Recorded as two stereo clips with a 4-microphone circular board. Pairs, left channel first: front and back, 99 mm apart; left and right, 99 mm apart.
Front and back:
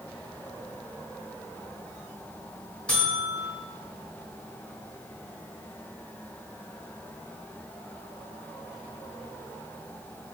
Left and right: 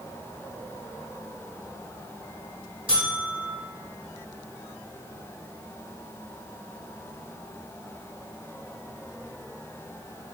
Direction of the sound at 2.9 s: 75° right.